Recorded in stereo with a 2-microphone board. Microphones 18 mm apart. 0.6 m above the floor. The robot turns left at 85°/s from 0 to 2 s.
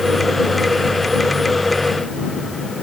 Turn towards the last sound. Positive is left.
No sound to turn to.